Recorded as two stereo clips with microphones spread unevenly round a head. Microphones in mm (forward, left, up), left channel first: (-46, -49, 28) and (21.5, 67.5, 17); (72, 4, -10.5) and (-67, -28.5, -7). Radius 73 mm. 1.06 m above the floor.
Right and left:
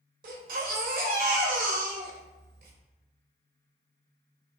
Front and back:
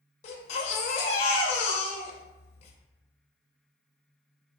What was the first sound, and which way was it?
A baby crying, 45° left.